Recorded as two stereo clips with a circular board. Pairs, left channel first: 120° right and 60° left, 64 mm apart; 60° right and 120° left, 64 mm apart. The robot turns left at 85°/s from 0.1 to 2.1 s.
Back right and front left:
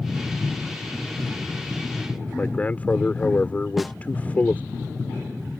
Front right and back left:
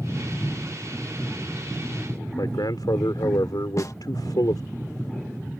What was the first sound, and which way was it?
A man speaking, 55° right.